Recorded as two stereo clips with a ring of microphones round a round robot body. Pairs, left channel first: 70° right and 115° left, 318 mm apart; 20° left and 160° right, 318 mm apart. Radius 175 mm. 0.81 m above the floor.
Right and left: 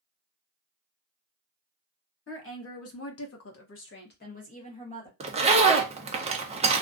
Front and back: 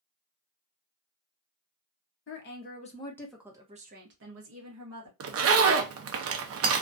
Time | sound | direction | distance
2.3 | a woman speaking | 25° right | 1.1 m
5.2 | a zipper | 175° left | 0.5 m